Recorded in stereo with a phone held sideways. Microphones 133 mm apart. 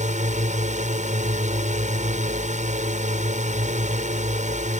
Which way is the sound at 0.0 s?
65° right (ahead or behind).